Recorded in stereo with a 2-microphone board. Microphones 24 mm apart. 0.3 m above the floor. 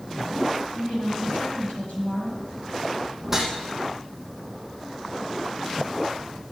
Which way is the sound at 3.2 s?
15° right (ahead or behind).